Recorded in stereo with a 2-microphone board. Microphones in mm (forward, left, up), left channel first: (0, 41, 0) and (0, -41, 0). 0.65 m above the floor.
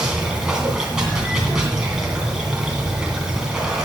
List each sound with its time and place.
0.0 s running water: 10° right (ahead or behind), 2.5 m